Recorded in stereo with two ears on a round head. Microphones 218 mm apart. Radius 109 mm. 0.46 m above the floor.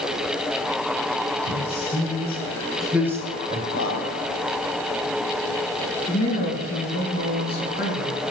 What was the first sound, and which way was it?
A man speaking, 45° left (ahead or behind).